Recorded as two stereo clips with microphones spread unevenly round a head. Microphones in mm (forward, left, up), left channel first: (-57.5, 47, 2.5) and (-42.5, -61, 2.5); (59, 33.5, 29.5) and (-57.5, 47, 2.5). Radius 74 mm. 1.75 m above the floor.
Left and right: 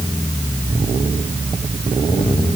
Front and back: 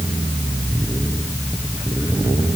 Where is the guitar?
No guitar in this recording.